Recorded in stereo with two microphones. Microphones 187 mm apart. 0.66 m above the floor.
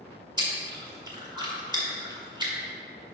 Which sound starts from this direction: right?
Chewing, at 0.4 s.